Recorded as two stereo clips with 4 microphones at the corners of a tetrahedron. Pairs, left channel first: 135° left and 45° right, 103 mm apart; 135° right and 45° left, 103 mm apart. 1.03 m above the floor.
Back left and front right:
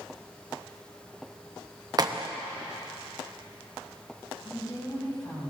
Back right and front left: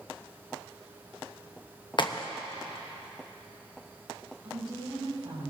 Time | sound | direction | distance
2.0 | a crack | 95° right | 0.7 m
4.4 | a woman speaking | 85° left | 6.5 m